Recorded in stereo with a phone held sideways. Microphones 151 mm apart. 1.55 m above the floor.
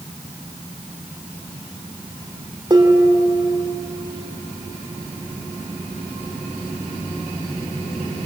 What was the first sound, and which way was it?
Dishes clattering, 30° right (ahead or behind).